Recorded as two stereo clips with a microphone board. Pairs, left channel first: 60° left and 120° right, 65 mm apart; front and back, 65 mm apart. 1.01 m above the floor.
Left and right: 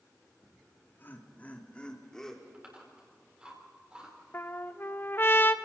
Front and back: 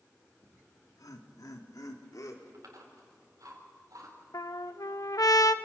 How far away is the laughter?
About 2 m.